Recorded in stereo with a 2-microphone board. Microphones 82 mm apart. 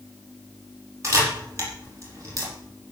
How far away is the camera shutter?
About 5 m.